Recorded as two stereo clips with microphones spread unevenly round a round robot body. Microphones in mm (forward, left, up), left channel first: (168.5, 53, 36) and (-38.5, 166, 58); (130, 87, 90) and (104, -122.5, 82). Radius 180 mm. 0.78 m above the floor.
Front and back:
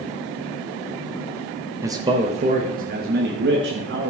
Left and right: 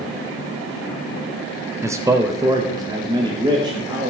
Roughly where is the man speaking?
Behind right.